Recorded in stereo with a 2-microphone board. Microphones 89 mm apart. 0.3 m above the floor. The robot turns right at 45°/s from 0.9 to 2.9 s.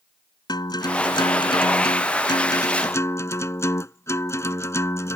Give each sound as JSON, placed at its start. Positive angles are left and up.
{"t": 0.5, "sound": "a guitar", "azimuth_deg": 55}